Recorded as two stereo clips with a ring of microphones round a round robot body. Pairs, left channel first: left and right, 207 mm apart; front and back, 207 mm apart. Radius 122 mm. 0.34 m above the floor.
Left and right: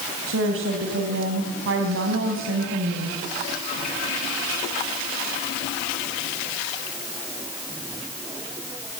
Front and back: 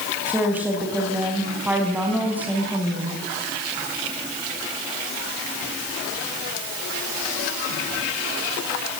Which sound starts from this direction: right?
A woman speaking, at 0.3 s.